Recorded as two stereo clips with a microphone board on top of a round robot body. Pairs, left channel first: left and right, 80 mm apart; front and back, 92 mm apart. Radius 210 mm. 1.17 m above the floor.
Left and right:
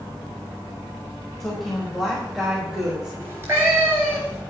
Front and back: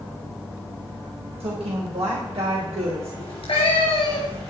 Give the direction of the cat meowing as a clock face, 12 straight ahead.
1 o'clock.